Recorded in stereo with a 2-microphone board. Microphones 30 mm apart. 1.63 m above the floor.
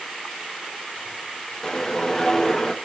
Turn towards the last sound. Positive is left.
turn(degrees=15)  # may be behind; listen again after turning